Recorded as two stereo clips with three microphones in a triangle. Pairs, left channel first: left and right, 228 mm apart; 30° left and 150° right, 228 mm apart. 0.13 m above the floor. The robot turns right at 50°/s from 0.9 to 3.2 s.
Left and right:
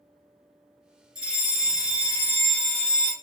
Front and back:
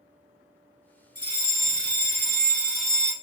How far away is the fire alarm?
About 2.5 m.